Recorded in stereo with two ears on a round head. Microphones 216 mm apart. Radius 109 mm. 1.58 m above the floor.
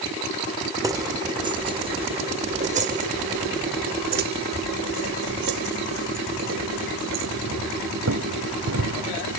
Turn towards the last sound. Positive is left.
turn(degrees=-70)  # may be behind; listen again after turning